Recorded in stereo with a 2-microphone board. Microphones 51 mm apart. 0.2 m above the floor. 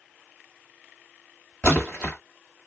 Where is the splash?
15° left (ahead or behind), 1.5 m.